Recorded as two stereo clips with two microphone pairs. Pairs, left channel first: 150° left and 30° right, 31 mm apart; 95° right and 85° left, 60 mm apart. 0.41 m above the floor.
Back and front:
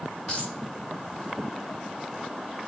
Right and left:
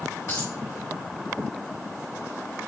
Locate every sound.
0.3 s a dropped coin: 135° right, 4.5 m